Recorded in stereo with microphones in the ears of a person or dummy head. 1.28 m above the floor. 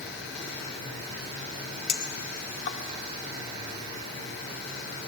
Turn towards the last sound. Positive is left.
turn(degrees=55)  # may be behind; listen again after turning